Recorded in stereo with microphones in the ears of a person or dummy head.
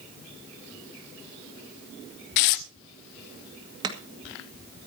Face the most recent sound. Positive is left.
turn(degrees=-35)  # may be behind; listen again after turning